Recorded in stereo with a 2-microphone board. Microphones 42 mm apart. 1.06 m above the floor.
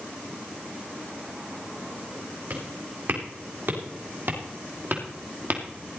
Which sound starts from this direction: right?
Footsteps, at 2.5 s.